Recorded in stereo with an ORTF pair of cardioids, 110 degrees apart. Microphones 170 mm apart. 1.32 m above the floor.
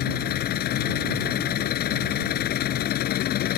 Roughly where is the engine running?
Left.